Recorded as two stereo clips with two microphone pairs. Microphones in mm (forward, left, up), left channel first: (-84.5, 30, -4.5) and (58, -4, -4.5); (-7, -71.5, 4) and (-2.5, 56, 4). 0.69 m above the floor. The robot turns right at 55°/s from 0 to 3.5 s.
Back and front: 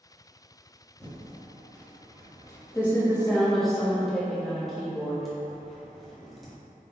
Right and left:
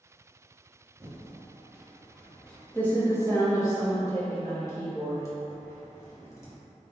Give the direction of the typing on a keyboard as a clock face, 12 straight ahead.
8 o'clock.